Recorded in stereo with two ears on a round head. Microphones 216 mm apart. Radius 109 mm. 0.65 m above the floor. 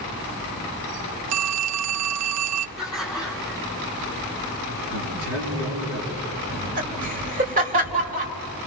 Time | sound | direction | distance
1.3 | a phone ringing | 70° right (ahead or behind) | 0.6 m
2.8 | laughter | 5° right (ahead or behind) | 8 m
4.9 | a man speaking | 65° right (ahead or behind) | 8.5 m
6.5 | laughter | 35° right (ahead or behind) | 3.5 m